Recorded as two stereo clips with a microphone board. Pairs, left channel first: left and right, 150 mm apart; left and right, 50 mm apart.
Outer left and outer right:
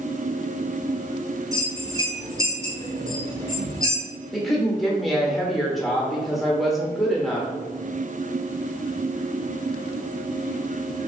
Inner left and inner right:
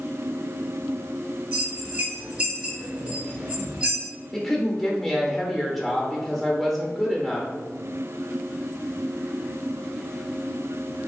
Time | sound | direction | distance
1.5 | a bell | 20° right (ahead or behind) | 1.4 m
4.3 | a woman speaking | centre (ahead or behind) | 0.8 m